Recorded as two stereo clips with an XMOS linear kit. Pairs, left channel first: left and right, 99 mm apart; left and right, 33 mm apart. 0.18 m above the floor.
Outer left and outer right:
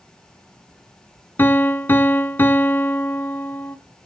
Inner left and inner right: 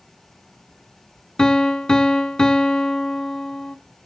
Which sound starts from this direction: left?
A piano, at 1.4 s.